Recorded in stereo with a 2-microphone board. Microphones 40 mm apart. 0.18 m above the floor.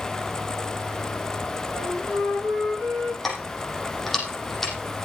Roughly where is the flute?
Centre.